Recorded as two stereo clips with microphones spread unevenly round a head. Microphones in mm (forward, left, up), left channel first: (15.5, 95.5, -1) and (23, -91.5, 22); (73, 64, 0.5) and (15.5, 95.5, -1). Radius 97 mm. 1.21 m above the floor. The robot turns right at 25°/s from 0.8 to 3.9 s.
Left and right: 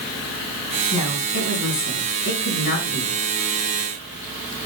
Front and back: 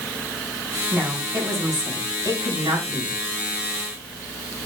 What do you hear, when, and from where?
0.9 s a woman speaking: 85° left, 5 m; by 3.2 s 140° left, 5 m